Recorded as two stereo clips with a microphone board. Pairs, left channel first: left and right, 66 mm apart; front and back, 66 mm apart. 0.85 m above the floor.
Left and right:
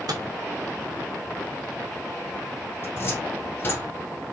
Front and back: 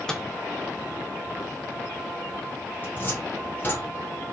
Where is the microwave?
80° right, 0.8 m.